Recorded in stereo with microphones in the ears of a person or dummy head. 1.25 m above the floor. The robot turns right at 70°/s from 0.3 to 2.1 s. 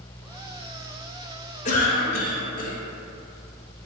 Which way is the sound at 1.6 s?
65° left.